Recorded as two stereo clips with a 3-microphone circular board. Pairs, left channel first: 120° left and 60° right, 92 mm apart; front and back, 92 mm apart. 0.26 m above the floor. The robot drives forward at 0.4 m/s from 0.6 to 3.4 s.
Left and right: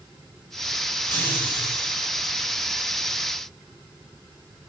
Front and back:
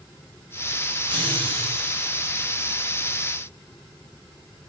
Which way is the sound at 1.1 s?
Straight behind.